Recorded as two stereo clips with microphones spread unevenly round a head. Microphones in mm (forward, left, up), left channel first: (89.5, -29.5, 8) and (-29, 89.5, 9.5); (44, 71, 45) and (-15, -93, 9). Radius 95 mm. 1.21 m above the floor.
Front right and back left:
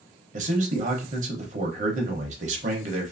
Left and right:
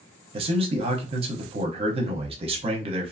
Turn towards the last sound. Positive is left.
turn(degrees=-170)